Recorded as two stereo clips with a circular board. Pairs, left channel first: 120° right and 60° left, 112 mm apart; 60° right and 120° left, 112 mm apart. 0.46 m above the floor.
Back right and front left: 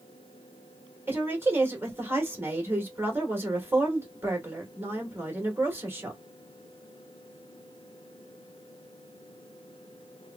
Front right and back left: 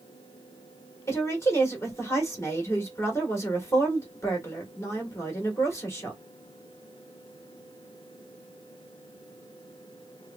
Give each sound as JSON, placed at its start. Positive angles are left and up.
{"t": 1.1, "sound": "a woman speaking", "azimuth_deg": -5, "distance_m": 1.3}